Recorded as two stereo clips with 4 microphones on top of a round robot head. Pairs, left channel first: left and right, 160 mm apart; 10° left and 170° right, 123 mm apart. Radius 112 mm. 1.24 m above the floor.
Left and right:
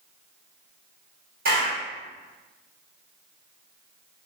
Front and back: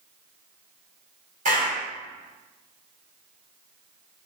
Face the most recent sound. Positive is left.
turn(degrees=-130)